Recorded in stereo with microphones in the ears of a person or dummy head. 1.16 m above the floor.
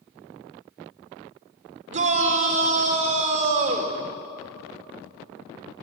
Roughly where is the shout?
Right.